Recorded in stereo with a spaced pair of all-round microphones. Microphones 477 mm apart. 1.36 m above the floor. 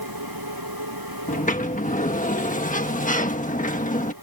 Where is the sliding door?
15° left (ahead or behind).